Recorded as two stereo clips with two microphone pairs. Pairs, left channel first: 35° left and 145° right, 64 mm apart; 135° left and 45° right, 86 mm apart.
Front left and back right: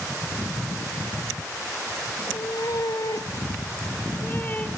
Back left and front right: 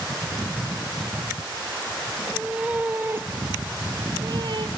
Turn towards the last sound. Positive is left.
turn(degrees=-25)